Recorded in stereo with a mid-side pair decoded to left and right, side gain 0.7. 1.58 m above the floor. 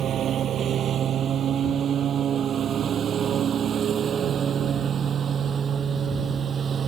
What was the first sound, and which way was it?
A lawn mower, 45° right.